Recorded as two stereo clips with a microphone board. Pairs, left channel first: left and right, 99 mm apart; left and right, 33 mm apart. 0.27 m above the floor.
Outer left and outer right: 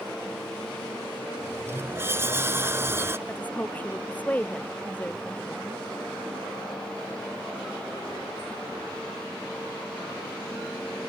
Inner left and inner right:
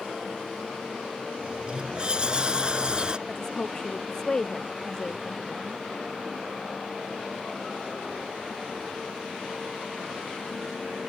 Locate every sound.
1.4 s a sliding door: 25° right (ahead or behind)
3.3 s a woman speaking: 15° left (ahead or behind)